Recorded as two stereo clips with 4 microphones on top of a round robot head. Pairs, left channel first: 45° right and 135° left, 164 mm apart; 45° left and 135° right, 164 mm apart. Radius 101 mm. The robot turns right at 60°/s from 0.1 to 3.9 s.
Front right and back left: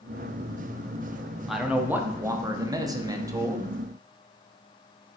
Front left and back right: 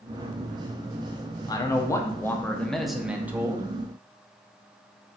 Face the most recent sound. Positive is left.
turn(degrees=-165)